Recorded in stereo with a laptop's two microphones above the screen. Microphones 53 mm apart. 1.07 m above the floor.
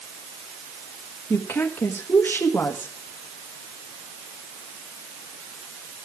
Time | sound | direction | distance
1.3 | a woman speaking | 50° left (ahead or behind) | 1.3 m